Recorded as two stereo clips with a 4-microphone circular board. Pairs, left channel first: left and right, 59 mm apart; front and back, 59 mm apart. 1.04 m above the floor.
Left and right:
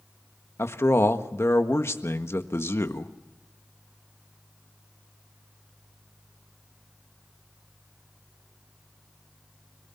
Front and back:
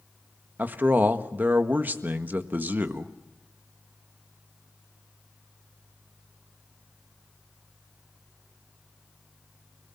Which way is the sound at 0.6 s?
125° left.